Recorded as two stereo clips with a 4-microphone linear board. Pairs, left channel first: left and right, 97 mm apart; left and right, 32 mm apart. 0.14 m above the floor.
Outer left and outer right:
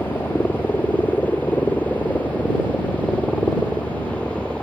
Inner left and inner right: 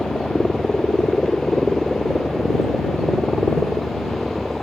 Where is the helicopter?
20° left (ahead or behind); by 4.6 s 10° left (ahead or behind).